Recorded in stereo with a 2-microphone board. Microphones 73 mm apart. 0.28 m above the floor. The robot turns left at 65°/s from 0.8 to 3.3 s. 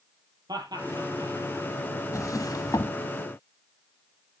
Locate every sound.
0.5 s laughter: 65° right (ahead or behind), 7 m; by 1.3 s 75° right (ahead or behind), 7 m
2.1 s a drawer: 45° left (ahead or behind), 0.9 m; by 3.0 s 55° left (ahead or behind), 0.9 m